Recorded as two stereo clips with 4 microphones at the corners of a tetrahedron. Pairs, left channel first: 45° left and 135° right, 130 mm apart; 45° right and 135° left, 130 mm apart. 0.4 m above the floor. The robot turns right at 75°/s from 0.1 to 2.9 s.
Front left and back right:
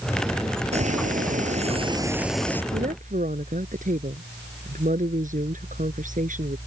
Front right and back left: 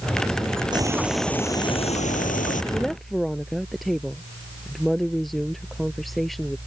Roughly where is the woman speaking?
Behind right.